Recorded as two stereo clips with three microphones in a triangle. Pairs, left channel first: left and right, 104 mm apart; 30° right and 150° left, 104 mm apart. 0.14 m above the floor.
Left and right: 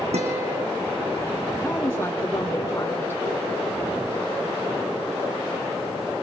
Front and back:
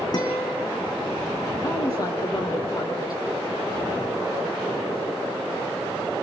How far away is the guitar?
About 4 m.